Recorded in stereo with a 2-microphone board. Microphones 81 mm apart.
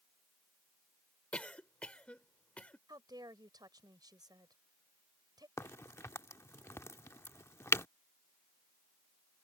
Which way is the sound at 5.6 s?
35° left (ahead or behind).